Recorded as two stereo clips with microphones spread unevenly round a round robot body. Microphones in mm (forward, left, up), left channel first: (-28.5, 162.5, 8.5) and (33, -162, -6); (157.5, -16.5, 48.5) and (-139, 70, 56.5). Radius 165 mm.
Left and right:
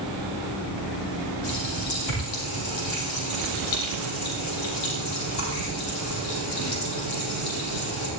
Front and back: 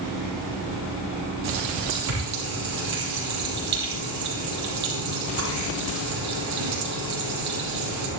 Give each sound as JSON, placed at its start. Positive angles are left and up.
{"t": 1.4, "sound": "a running tap", "azimuth_deg": 130, "distance_m": 8.0}